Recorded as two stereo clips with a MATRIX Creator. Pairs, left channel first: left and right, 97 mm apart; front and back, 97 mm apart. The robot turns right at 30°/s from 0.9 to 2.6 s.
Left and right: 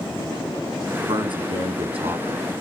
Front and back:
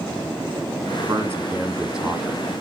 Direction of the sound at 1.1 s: 120° right.